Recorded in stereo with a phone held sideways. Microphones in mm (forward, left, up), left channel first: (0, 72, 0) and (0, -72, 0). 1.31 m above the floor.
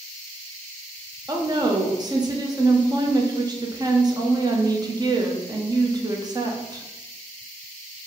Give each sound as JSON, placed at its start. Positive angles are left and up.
{"t": 1.3, "sound": "a woman speaking", "side_deg": -30, "distance_m": 0.7}